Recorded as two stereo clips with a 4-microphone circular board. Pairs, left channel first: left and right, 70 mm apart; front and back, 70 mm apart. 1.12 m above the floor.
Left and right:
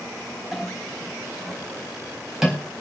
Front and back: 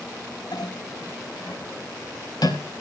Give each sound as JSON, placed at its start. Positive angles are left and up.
{"t": 0.5, "sound": "a clink", "azimuth_deg": -5, "distance_m": 4.0}